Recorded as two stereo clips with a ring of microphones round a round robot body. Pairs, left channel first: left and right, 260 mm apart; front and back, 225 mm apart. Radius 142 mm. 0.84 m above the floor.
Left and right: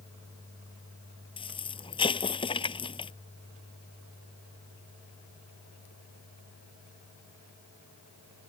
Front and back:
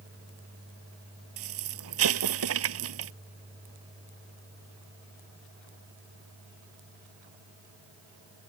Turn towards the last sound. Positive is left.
turn(degrees=160)